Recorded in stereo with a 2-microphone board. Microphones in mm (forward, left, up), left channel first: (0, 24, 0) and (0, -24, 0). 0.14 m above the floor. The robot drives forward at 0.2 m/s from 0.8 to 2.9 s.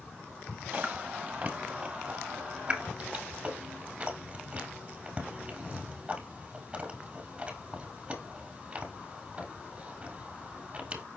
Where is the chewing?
30° right (ahead or behind), 1.1 m; by 11.0 s 20° right (ahead or behind), 1.5 m.